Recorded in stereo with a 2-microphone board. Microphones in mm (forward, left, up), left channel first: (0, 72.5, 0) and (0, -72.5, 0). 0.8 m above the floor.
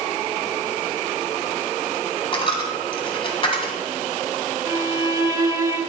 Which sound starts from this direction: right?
A violin, at 4.7 s.